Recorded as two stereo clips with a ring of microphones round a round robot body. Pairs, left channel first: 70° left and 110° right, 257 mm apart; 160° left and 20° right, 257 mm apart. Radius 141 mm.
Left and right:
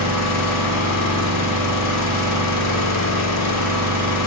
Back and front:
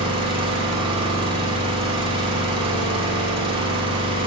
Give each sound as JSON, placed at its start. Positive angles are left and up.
{"t": 0.0, "sound": "an engine running", "azimuth_deg": 50, "distance_m": 1.9}